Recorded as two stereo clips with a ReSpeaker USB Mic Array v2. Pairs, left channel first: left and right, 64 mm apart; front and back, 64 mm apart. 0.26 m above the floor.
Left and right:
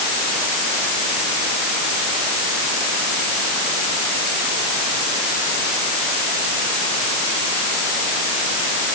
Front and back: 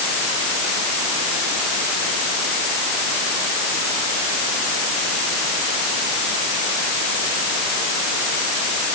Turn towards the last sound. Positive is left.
No sound to turn to.